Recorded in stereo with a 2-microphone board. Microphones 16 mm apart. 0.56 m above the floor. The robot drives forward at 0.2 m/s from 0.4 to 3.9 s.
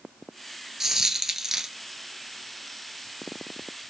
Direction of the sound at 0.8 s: 35° right (ahead or behind).